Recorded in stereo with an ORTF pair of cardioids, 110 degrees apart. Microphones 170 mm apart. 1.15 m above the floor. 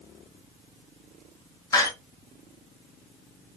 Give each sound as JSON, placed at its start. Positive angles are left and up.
{"t": 1.7, "sound": "a door slam", "azimuth_deg": 20, "distance_m": 1.0}